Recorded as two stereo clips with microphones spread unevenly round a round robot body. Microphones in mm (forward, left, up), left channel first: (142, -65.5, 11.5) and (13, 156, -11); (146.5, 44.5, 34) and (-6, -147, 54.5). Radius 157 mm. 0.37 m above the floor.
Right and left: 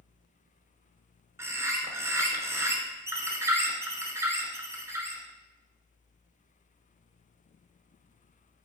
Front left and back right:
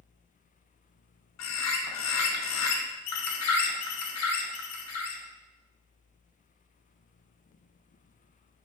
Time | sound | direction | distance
1.4 | a bird | 40° left | 0.7 m